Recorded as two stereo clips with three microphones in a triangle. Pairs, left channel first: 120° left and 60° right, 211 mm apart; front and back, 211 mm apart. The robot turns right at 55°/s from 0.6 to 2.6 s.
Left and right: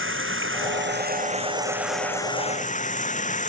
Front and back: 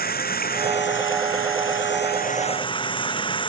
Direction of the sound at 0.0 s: 45° right.